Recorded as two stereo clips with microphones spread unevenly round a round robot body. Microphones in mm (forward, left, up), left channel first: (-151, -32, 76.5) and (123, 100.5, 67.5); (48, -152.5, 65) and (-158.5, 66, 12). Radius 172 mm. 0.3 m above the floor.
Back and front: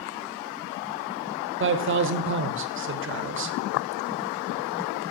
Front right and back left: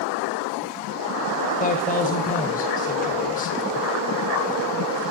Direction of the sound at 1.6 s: 20° left.